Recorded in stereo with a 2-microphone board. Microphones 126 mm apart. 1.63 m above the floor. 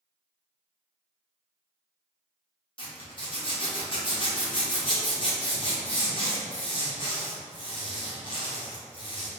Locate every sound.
2.8 s a zipper: 45° left (ahead or behind), 1.0 m